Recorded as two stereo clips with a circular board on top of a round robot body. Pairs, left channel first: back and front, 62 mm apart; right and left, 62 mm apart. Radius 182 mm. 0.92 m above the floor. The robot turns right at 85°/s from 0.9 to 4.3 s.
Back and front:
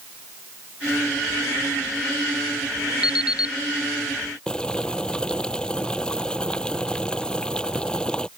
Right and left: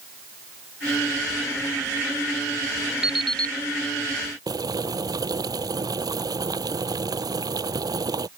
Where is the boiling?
100° left.